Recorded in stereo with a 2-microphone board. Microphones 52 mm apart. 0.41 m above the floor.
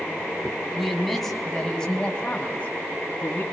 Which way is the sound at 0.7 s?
Centre (ahead or behind).